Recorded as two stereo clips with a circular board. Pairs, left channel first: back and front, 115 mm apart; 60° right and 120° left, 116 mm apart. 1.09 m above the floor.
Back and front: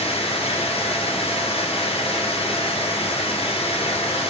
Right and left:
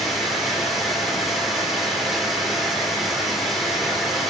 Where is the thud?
No thud in this recording.